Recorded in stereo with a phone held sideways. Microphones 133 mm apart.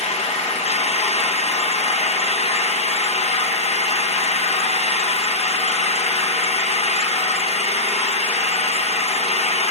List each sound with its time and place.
0.0 s an engine running: 55° left (ahead or behind), 0.7 m